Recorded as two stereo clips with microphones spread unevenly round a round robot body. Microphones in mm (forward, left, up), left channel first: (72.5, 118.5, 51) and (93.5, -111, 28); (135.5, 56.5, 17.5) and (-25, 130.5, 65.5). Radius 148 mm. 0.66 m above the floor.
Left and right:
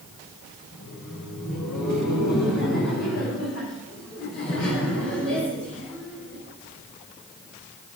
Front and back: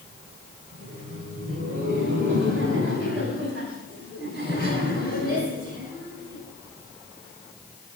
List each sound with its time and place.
0.7 s laughter: 150° left, 2.5 m; by 6.4 s 145° left, 5.5 m